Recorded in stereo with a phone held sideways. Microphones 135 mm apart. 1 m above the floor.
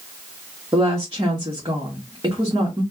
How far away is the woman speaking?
About 1.4 m.